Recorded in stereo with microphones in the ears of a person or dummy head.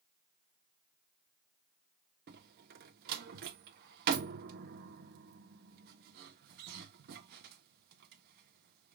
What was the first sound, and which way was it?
A door slam, 55° right (ahead or behind).